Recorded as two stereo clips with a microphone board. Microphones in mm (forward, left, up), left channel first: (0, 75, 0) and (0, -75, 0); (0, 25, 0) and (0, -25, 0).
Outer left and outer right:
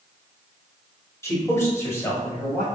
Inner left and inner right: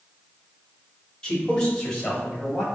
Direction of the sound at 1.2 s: 20° left (ahead or behind).